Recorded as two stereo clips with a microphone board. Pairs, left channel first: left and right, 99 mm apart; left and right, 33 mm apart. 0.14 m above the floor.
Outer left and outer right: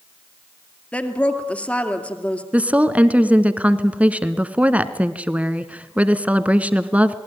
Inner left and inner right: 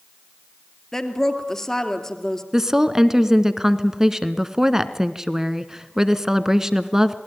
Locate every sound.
0.9 s a woman speaking: 15° left (ahead or behind), 2.5 m
2.5 s a woman speaking: 15° right (ahead or behind), 1.2 m